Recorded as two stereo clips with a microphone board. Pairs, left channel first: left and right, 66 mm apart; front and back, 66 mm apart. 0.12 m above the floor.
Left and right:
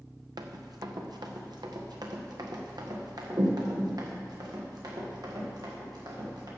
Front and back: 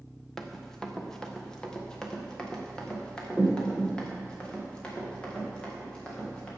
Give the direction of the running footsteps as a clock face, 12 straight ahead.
3 o'clock.